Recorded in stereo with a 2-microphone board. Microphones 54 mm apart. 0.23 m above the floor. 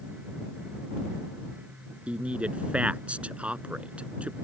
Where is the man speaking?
20° right (ahead or behind).